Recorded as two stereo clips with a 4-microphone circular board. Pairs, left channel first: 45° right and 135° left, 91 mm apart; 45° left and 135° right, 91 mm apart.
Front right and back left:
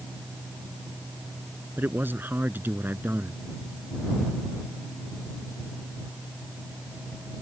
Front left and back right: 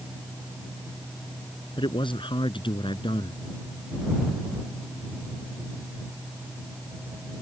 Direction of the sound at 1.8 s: 65° left.